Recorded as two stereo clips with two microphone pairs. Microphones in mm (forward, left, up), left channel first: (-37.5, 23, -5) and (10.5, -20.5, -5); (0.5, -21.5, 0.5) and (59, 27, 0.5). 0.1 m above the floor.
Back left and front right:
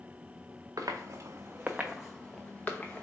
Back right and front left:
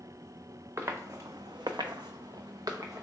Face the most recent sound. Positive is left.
turn(degrees=80)